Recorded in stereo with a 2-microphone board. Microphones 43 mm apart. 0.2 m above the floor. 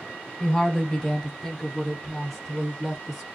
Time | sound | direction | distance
0.4 | a woman speaking | 15° left (ahead or behind) | 1.2 m